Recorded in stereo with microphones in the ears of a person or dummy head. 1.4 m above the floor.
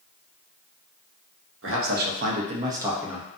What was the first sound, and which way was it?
A man speaking, 60° right (ahead or behind).